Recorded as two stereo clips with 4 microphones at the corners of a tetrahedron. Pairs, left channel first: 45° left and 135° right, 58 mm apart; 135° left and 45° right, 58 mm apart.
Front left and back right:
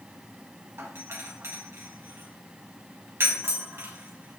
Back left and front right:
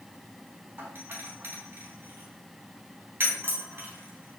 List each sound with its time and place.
0.8 s a doorbell: 95° right, 3.5 m